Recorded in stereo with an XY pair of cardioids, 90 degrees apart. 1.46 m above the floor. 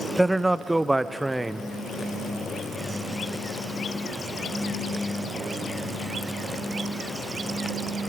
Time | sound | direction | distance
0.2 | a man speaking | 15° right | 0.9 m